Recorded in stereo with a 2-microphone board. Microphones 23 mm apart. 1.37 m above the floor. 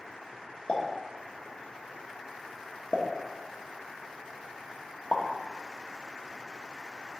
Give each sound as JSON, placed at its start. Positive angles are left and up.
{"t": 0.7, "sound": "a pop", "side_deg": 55, "distance_m": 1.0}